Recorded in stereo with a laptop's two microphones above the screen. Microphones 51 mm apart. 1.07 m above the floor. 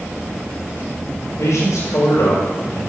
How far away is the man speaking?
About 4 m.